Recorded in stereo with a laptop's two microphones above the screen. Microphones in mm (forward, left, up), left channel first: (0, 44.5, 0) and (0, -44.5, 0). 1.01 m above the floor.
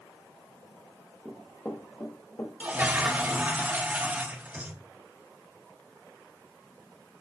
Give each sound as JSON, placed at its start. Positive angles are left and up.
{"t": 1.2, "sound": "running footsteps", "side_deg": 5, "distance_m": 1.5}
{"t": 2.6, "sound": "a toilet flushing", "side_deg": -20, "distance_m": 0.8}